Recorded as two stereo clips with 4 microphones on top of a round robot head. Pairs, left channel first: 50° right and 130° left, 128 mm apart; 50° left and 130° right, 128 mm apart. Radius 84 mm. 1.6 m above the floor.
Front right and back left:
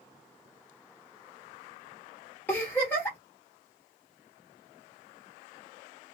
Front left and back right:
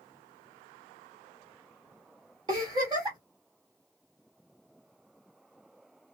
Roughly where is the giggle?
Right.